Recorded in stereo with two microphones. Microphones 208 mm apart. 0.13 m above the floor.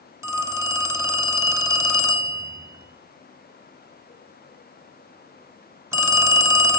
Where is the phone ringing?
15° right (ahead or behind), 0.9 m.